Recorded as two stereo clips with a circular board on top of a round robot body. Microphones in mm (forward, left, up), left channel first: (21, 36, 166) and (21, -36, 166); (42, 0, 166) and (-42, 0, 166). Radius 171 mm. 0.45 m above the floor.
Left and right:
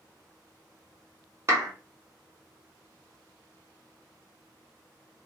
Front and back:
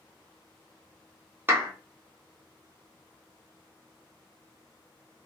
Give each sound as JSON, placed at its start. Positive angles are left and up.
{"t": 1.5, "sound": "a clap", "azimuth_deg": -125, "distance_m": 1.5}